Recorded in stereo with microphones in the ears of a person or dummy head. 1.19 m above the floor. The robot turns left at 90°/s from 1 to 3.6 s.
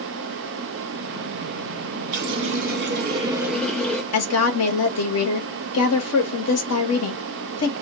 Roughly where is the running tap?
Ahead right.